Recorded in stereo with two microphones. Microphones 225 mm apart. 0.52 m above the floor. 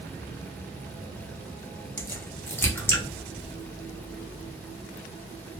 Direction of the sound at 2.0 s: 10° left (ahead or behind).